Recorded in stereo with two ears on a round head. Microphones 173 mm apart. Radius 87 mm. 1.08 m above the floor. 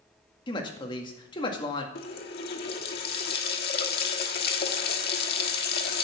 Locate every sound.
0.5 s a woman speaking: 25° left (ahead or behind), 2 m
1.9 s a running tap: 55° left (ahead or behind), 1.3 m